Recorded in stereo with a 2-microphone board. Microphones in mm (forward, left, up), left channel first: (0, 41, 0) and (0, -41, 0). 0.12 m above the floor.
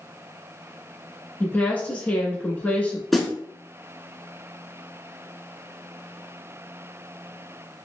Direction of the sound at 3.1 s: Centre (ahead or behind).